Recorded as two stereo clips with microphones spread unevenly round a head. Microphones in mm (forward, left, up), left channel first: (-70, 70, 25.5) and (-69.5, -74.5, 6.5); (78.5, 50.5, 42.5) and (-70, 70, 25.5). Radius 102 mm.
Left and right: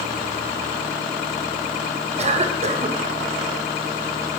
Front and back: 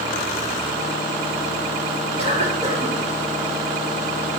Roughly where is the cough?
Behind right.